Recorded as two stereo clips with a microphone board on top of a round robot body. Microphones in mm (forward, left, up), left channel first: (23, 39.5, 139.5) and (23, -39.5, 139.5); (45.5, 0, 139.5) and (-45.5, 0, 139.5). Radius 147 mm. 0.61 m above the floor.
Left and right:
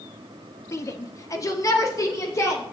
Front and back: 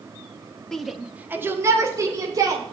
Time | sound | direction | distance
0.7 | a shout | 80° left | 1.4 m